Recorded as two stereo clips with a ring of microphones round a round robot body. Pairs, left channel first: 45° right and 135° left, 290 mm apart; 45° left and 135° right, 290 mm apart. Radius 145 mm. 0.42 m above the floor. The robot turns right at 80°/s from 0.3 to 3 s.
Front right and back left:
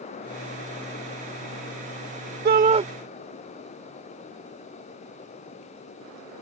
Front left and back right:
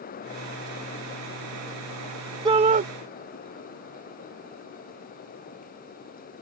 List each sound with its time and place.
2.5 s a shout: 160° left; by 2.9 s 165° right